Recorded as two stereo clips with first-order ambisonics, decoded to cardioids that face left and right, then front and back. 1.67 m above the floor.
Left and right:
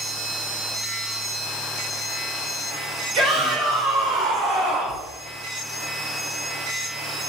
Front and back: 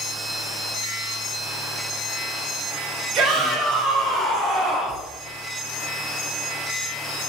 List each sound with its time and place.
3.1 s a shout: 135° right, 1.4 m; by 5.0 s 95° right, 1.9 m